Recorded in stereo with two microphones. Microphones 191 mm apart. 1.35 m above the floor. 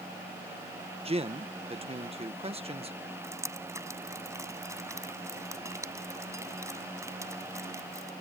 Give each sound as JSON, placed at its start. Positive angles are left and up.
{"t": 1.1, "sound": "a man speaking", "side_deg": -30}
{"t": 3.2, "sound": "dripping", "side_deg": -15}